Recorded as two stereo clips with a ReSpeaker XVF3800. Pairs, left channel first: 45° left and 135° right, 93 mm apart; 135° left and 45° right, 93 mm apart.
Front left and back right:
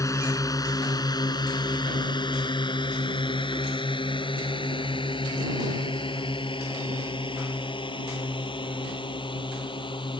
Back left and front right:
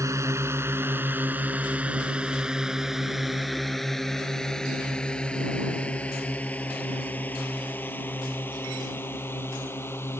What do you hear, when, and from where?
0.0 s a drone: straight ahead; by 10.2 s 70° left